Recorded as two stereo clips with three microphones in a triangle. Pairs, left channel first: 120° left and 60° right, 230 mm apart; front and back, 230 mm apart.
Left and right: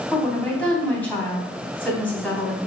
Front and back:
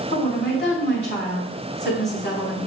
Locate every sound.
0.1 s a woman speaking: 35° left, 3.5 m